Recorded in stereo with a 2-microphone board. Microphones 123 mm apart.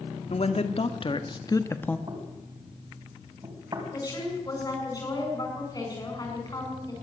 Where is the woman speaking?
30° left (ahead or behind), 7.5 m.